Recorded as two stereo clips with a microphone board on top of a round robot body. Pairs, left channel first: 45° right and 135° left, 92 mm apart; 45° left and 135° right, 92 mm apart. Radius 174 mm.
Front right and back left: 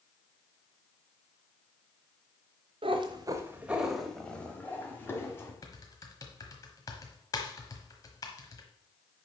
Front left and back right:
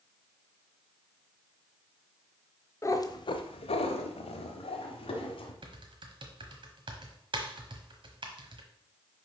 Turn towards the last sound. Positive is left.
turn(degrees=-100)